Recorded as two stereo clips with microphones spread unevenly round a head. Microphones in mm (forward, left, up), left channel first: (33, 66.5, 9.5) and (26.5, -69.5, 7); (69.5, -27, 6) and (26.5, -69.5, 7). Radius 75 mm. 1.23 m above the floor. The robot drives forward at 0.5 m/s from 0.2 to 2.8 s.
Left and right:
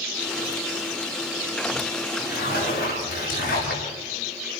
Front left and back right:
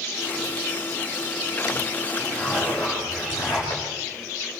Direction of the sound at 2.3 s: 120° left.